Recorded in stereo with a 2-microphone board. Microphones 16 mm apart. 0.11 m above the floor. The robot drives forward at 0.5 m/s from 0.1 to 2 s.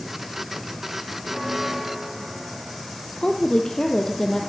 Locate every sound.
1.2 s a bell: 15° right (ahead or behind), 3.5 m
3.2 s a woman speaking: 35° left (ahead or behind), 3 m